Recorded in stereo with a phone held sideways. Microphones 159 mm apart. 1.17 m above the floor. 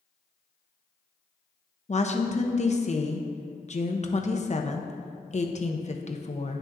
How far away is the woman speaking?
About 0.8 m.